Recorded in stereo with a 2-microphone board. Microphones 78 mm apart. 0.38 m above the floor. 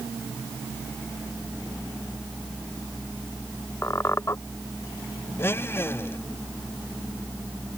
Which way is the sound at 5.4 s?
30° left (ahead or behind).